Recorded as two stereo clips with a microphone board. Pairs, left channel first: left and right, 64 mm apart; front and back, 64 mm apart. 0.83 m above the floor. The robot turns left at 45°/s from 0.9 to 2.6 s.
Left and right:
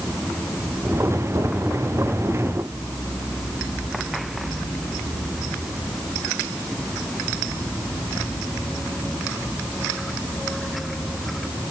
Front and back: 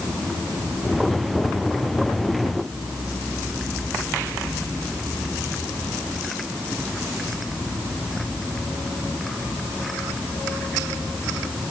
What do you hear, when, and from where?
Only background noise.